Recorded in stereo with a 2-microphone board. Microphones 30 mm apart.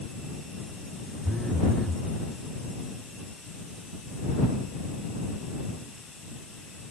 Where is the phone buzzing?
15° left (ahead or behind).